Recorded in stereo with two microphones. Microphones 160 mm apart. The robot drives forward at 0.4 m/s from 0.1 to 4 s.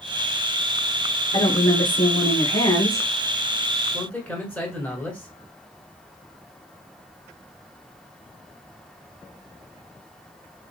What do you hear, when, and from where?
1.3 s a woman speaking: 30° left (ahead or behind), 1.4 m; by 3.1 s 20° left (ahead or behind), 1.8 m
3.9 s a man speaking: 5° left (ahead or behind), 1.3 m